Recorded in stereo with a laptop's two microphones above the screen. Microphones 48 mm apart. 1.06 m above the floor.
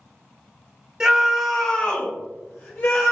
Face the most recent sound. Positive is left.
turn(degrees=55)  # may be behind; listen again after turning